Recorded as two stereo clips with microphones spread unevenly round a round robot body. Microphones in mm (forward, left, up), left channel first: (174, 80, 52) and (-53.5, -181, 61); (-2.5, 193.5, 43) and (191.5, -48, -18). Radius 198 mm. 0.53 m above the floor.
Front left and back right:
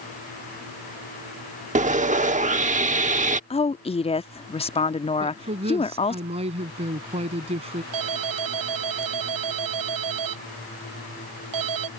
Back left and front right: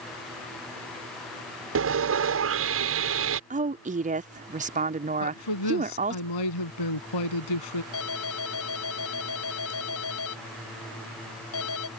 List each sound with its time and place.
1.8 s sawing: 65° right
3.5 s a woman speaking: 15° right
5.2 s a woman speaking: 155° left
7.9 s a ringtone: 175° right